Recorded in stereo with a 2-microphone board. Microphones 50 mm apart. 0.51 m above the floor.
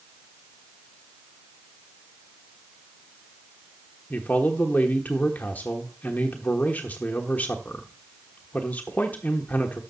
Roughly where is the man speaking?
Left.